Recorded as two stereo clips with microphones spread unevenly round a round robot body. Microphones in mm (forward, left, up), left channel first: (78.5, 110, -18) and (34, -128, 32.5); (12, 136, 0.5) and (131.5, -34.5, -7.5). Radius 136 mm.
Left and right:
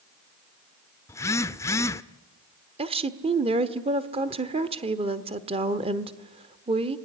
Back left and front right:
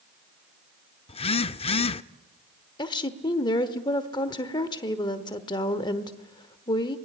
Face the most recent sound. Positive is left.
turn(degrees=-170)